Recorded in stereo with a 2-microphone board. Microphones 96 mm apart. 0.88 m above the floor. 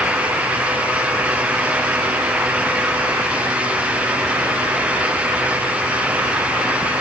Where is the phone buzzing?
I don't hear a phone buzzing.